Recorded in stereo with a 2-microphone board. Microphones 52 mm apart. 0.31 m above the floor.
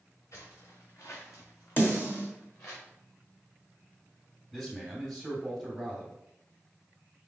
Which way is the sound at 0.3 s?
75° left (ahead or behind).